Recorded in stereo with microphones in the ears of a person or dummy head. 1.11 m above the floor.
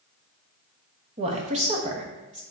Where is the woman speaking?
30° right (ahead or behind), 1.0 m.